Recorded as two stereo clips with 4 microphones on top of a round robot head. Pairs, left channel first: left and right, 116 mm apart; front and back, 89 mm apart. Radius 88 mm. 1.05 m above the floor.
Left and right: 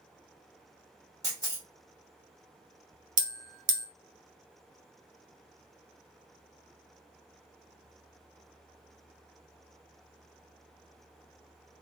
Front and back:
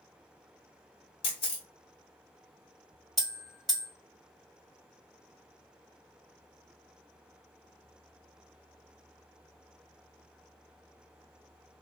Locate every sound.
1.2 s a camera shutter: 20° right, 0.6 m
3.2 s a bell: 90° right, 0.5 m